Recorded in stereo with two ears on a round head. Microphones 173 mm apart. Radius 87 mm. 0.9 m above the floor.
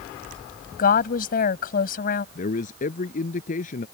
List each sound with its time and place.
0.8 s a woman speaking: 50° left (ahead or behind)
2.4 s a man speaking: 40° left (ahead or behind)